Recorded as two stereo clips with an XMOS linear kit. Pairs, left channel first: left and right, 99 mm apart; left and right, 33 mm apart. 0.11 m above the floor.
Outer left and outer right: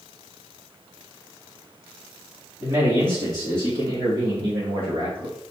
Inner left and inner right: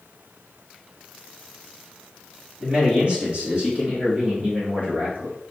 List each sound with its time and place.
2.6 s a man speaking: 30° right (ahead or behind), 3 m; by 5.3 s 55° right (ahead or behind), 3.5 m